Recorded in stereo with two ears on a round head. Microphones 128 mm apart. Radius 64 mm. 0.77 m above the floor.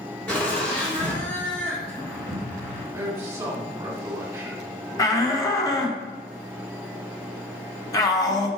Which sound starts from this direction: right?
A man speaking, at 2.9 s.